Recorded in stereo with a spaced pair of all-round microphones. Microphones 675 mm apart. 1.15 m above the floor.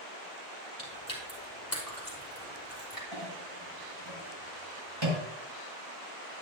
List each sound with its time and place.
0.8 s chewing: 30° left (ahead or behind), 5 m
3.1 s a clink: 40° right (ahead or behind), 5 m